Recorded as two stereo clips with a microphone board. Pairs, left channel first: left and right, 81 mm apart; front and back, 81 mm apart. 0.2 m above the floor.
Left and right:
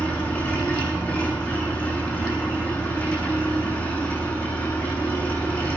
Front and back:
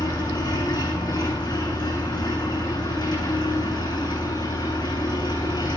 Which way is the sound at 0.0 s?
25° left.